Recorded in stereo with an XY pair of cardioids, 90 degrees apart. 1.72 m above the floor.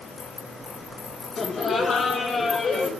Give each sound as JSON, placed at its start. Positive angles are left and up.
{"t": 1.4, "sound": "laughter", "azimuth_deg": 50, "distance_m": 2.0}